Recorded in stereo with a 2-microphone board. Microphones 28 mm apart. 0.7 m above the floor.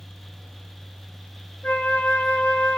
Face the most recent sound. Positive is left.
turn(degrees=75)  # may be behind; listen again after turning